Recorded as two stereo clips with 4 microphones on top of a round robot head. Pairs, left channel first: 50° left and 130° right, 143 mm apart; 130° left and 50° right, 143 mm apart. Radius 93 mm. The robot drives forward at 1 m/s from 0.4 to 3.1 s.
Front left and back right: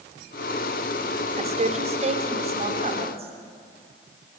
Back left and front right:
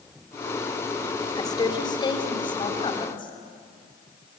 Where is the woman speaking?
170° right, 2 m; by 3.3 s 175° right, 4 m.